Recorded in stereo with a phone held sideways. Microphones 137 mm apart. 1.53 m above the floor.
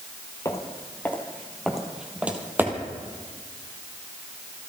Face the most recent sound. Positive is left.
turn(degrees=-35)  # may be behind; listen again after turning